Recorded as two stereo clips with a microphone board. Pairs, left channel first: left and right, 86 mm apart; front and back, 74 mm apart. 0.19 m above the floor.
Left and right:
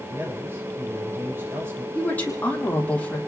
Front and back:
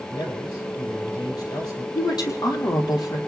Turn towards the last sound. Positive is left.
turn(degrees=20)